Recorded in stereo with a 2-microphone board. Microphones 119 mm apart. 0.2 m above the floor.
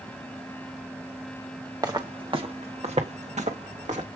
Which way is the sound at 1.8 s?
30° right (ahead or behind).